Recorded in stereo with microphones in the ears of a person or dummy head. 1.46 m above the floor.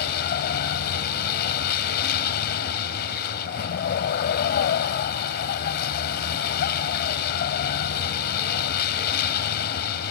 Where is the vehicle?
50° left (ahead or behind).